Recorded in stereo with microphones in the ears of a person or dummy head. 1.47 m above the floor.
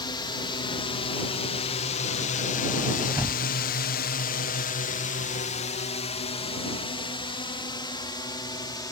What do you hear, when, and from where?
0.0 s a drone: 25° left (ahead or behind); by 8.9 s 20° left (ahead or behind)
3.1 s a thud: 10° right (ahead or behind)